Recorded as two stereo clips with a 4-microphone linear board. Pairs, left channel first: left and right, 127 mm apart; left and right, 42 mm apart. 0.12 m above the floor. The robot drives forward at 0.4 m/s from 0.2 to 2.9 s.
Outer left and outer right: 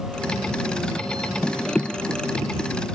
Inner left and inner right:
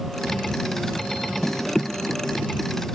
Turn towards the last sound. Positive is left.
No sound to turn to.